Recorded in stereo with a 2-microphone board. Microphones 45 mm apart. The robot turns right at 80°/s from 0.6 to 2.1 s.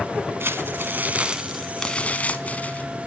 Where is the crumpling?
85° right, 1.0 m; by 2.9 s 35° left, 1.0 m.